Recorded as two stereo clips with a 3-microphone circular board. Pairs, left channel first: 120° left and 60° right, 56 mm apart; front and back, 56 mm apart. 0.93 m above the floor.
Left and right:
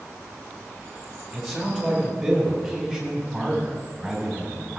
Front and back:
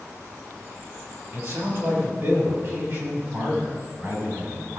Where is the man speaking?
150° right, 5.5 m; by 4.8 s 140° right, 7.5 m.